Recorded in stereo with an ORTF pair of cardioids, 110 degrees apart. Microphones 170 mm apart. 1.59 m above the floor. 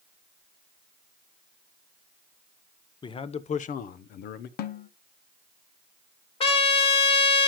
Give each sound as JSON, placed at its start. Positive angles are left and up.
{"t": 3.0, "sound": "a man speaking", "azimuth_deg": 25, "distance_m": 1.0}
{"t": 4.6, "sound": "a snare drum", "azimuth_deg": 65, "distance_m": 1.1}
{"t": 6.4, "sound": "a trumpet", "azimuth_deg": 35, "distance_m": 1.9}